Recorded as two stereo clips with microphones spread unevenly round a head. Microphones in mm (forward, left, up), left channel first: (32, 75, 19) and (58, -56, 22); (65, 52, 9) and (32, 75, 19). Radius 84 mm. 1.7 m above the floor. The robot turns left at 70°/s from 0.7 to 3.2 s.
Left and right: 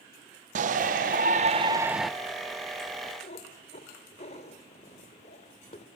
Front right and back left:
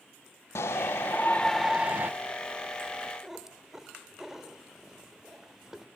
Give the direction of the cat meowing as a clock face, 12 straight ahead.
9 o'clock.